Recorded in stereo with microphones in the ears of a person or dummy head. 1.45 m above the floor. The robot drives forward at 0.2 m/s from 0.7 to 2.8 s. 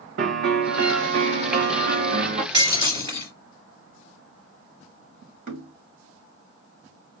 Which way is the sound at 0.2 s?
60° right (ahead or behind).